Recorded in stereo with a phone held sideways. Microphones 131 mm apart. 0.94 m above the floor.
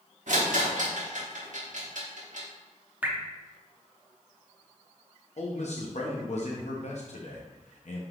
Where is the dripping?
15° right (ahead or behind), 0.7 m.